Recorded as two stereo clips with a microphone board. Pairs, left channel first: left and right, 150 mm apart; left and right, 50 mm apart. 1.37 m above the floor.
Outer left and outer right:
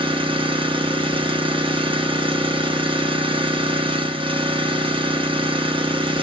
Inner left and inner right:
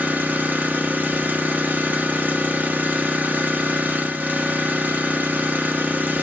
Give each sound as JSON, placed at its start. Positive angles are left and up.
{"t": 0.0, "sound": "an engine running", "side_deg": -35, "distance_m": 0.8}